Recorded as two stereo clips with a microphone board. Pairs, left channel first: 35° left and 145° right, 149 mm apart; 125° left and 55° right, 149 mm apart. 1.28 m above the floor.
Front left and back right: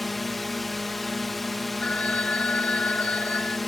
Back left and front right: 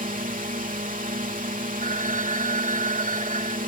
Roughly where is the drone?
Ahead right.